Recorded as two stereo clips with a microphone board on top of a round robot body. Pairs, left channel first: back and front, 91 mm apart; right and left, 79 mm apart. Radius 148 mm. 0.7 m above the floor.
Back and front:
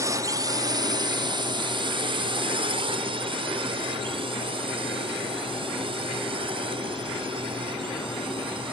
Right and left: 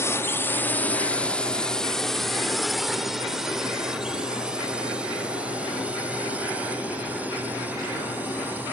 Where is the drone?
45° right; by 8.7 s 20° left.